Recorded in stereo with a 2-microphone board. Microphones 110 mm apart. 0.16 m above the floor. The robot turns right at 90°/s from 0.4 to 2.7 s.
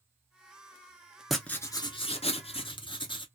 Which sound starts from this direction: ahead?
Writing, at 1.3 s.